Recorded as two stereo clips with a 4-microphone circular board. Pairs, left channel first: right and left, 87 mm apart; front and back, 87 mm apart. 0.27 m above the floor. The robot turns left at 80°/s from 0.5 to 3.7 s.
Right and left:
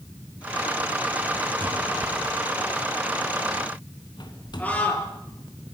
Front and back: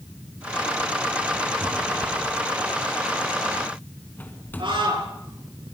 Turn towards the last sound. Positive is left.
turn(degrees=-160)